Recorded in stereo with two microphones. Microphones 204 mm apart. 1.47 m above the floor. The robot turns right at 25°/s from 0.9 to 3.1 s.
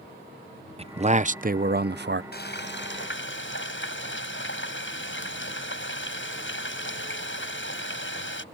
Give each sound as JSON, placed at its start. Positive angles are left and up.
{"t": 0.8, "sound": "a man speaking", "azimuth_deg": -150}
{"t": 2.3, "sound": "frying", "side_deg": 55}